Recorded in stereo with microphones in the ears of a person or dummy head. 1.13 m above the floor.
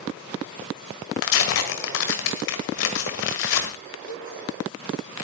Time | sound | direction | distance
1.2 | tearing paper | 55° left (ahead or behind) | 1.7 m
4.1 | a cowbell | 50° left (ahead or behind) | 1.8 m